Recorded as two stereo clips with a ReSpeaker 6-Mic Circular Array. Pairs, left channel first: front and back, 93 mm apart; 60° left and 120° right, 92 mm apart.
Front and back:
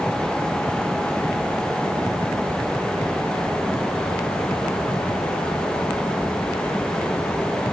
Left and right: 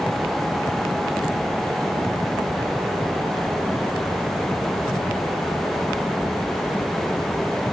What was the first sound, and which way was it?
Only background noise.